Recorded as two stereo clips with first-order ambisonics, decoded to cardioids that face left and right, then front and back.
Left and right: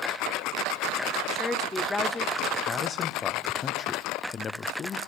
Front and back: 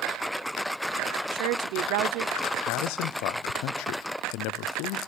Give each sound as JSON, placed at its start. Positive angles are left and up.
{"t": 1.3, "sound": "a woman speaking", "azimuth_deg": 170, "distance_m": 0.8}
{"t": 2.7, "sound": "a man speaking", "azimuth_deg": 25, "distance_m": 0.7}